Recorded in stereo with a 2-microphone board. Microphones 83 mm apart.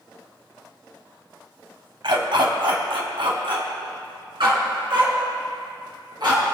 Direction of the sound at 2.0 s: 70° right (ahead or behind).